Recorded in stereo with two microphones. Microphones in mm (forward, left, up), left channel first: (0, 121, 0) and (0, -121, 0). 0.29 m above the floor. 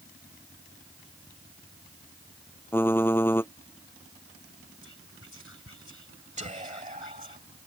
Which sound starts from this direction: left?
Whispering, at 4.8 s.